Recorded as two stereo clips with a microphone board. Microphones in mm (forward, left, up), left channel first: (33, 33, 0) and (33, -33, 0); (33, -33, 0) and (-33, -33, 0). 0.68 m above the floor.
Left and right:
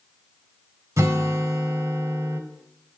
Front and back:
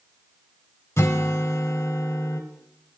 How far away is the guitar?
About 1.3 m.